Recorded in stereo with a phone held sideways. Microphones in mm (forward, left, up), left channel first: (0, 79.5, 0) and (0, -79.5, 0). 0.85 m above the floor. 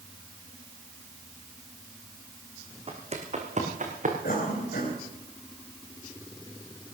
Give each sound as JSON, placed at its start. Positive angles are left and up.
{"t": 2.9, "sound": "footsteps", "side_deg": -40, "distance_m": 3.5}
{"t": 4.2, "sound": "a cough", "side_deg": 80, "distance_m": 4.0}